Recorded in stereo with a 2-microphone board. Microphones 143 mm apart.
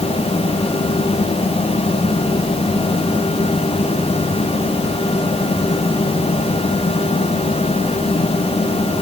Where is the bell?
No bell in this recording.